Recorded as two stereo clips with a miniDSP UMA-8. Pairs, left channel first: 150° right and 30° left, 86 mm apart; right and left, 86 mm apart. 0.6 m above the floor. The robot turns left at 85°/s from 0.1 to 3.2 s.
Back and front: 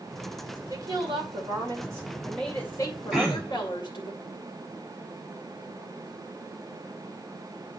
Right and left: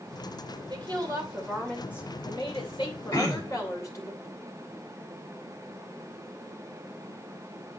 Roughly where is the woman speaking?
Left.